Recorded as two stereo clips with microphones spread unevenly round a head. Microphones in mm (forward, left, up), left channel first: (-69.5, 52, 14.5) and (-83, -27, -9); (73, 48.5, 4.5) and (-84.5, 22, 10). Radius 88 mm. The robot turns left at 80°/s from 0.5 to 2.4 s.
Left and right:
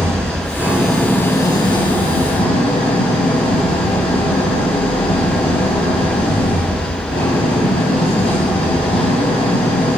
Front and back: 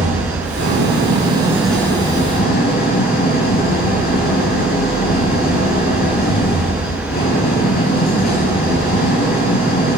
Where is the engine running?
165° right, 7 m; by 10.0 s 45° left, 7 m.